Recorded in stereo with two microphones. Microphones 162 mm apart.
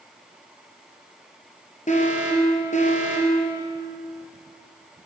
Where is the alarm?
45° left (ahead or behind), 3 m.